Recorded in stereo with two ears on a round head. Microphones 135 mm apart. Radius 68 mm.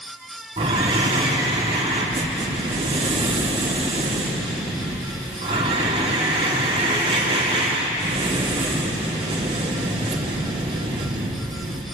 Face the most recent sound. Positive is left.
turn(degrees=-35)  # may be behind; listen again after turning